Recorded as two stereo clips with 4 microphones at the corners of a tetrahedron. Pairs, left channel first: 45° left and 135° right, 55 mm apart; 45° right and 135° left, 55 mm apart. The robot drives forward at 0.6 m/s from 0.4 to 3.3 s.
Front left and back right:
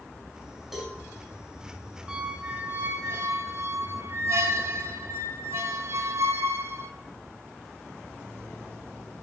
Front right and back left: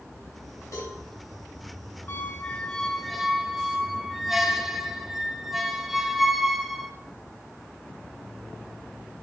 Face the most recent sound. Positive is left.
turn(degrees=-140)